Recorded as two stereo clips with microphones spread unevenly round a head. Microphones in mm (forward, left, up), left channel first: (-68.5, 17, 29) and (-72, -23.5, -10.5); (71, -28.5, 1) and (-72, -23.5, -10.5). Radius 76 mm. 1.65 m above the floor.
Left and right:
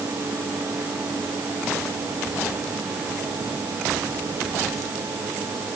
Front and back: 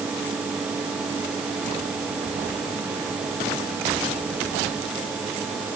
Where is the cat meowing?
I don't hear a cat meowing.